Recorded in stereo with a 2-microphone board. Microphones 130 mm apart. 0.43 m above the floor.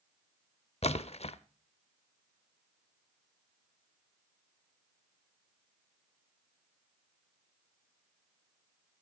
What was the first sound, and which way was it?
A splash, 55° left (ahead or behind).